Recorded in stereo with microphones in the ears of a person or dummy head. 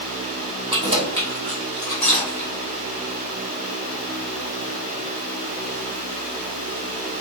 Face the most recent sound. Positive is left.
turn(degrees=10)  # may be behind; listen again after turning